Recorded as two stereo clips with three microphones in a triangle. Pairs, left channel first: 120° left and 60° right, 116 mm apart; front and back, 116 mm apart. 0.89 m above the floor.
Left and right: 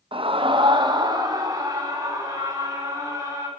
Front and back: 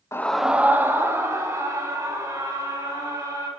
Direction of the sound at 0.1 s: 55° right.